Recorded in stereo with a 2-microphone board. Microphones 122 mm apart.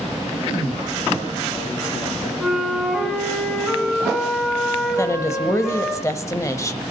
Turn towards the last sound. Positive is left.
turn(degrees=25)  # may be behind; listen again after turning